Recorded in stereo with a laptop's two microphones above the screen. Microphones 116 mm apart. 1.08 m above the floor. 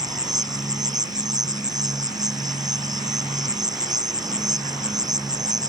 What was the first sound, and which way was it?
An insect, 35° right (ahead or behind).